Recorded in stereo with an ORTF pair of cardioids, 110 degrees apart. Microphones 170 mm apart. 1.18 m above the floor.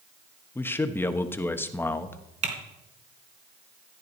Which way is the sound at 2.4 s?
45° right.